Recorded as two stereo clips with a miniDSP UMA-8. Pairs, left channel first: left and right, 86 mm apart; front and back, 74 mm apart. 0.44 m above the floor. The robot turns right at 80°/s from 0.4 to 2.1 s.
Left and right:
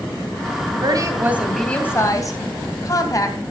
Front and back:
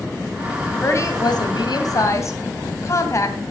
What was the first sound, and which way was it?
A woman speaking, 60° right.